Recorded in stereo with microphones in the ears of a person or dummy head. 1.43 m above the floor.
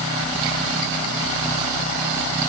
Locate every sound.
Only background noise.